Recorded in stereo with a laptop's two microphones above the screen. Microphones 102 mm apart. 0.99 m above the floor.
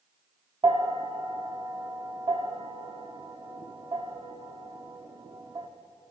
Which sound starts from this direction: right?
A bell, at 0.6 s.